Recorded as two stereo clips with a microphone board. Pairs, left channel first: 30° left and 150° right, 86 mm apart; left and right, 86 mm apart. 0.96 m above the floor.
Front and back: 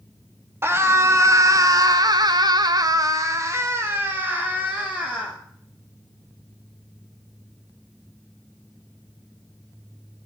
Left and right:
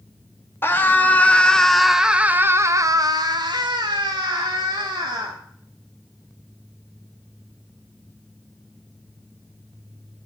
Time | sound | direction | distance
0.6 | a scream | 150° left | 2.0 m